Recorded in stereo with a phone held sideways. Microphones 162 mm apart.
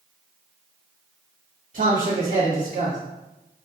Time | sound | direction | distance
1.7 | a man speaking | 45° right (ahead or behind) | 1.3 m